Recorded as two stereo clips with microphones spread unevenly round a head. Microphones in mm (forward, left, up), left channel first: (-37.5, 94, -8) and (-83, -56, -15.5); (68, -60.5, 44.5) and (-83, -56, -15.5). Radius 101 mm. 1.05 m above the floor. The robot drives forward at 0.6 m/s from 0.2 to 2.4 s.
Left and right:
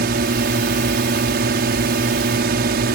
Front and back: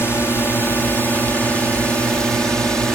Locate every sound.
0.0 s a drone: 85° right; by 3.0 s 100° right